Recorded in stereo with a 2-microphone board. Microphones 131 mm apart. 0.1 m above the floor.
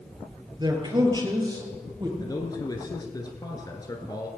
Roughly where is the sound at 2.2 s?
Left.